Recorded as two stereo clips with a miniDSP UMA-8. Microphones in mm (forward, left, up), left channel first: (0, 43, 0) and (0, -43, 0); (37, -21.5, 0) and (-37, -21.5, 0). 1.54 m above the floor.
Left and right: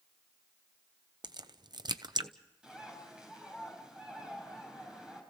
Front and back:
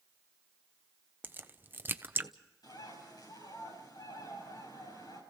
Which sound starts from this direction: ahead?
A bird, at 2.6 s.